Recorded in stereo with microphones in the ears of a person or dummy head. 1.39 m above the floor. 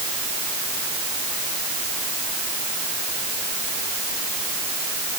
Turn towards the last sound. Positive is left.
No sound to turn to.